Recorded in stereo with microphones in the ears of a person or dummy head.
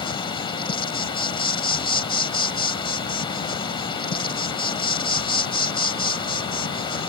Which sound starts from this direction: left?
An insect, at 0.0 s.